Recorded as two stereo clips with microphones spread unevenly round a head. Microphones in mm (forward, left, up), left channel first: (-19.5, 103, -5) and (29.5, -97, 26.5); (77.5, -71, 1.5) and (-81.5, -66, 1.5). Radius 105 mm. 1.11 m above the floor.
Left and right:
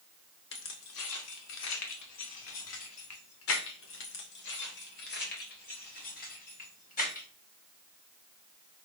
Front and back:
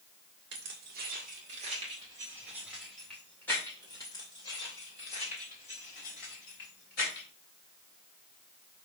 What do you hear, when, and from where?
0.5 s keys jangling: 135° left, 2 m; by 7.2 s 50° left, 4.5 m